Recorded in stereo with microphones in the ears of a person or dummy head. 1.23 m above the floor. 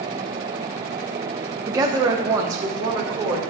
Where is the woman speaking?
20° right (ahead or behind), 1.0 m.